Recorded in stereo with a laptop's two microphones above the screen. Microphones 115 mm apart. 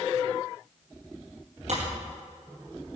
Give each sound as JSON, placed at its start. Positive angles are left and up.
{"t": 1.7, "sound": "breaking glass", "side_deg": -70, "distance_m": 4.0}